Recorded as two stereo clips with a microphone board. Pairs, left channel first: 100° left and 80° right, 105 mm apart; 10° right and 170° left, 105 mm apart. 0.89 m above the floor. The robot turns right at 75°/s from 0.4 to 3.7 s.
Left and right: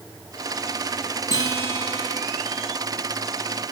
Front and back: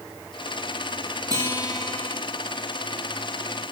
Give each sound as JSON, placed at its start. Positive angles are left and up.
{"t": 1.3, "sound": "a guitar", "azimuth_deg": -135, "distance_m": 1.9}